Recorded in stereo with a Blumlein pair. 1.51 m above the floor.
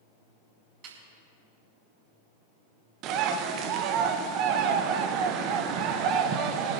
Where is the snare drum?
40° right, 6 m.